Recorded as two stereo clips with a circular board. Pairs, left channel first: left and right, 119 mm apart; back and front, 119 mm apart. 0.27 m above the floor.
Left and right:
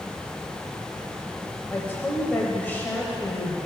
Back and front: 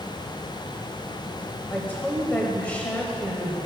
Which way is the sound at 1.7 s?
130° left.